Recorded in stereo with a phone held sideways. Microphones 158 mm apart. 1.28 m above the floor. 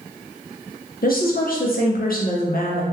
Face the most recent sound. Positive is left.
turn(degrees=70)  # may be behind; listen again after turning